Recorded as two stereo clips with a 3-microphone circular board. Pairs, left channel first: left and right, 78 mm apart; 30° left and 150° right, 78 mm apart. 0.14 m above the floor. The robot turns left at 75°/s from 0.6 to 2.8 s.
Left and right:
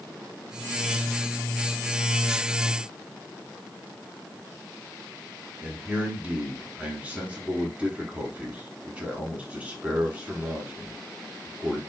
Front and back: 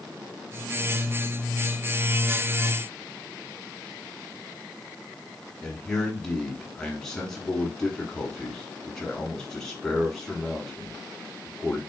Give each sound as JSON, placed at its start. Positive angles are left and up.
{"t": 5.6, "sound": "a man speaking", "azimuth_deg": -45, "distance_m": 1.2}